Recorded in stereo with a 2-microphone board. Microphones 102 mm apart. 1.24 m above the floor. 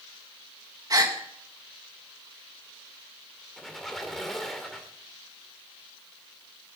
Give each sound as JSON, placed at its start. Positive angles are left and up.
{"t": 0.9, "sound": "a gasp", "side_deg": -35, "distance_m": 1.4}
{"t": 3.6, "sound": "a squeak", "side_deg": 0, "distance_m": 1.7}